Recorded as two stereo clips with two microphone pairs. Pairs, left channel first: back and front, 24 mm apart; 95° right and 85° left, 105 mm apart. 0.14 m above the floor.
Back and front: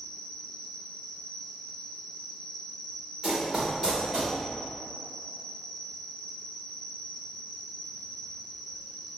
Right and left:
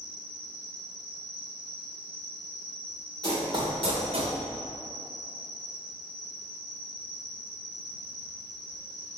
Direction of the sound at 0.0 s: 105° right.